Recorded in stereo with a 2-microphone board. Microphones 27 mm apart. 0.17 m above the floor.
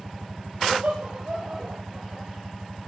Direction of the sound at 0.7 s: 60° right (ahead or behind).